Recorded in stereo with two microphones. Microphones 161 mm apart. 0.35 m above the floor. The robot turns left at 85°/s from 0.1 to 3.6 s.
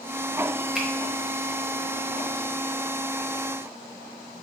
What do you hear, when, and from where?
0.8 s a finger snap: 5° right (ahead or behind), 0.8 m; by 0.9 s 10° right (ahead or behind), 0.8 m